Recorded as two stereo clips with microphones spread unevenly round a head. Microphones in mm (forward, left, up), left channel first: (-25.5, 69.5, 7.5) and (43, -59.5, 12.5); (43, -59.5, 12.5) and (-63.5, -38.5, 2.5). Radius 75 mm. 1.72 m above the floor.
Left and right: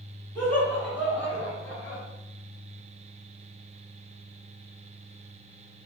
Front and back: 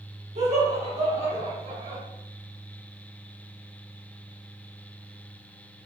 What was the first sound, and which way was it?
Laughter, 165° right.